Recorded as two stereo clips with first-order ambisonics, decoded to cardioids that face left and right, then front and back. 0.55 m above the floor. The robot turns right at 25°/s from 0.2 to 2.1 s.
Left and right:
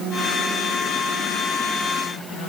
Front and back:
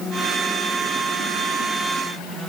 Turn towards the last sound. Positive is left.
No sound to turn to.